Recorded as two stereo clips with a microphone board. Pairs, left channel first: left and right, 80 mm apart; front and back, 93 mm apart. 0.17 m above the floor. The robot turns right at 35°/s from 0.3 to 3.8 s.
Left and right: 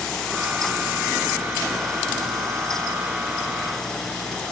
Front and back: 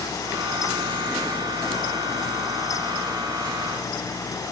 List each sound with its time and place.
Only background noise.